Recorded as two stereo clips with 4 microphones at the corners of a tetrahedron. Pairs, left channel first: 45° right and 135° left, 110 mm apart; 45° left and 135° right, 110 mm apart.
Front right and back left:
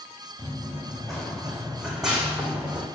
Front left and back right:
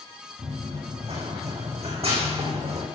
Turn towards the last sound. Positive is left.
turn(degrees=-145)